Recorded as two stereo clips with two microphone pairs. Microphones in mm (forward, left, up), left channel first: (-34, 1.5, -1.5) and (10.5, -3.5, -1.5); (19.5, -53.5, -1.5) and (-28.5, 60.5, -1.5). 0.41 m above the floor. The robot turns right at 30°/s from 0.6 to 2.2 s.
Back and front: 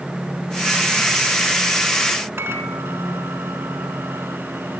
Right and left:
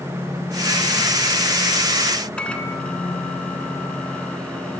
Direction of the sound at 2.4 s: 15° left.